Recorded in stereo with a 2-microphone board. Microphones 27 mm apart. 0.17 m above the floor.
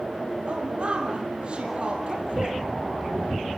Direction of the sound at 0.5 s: 45° right (ahead or behind).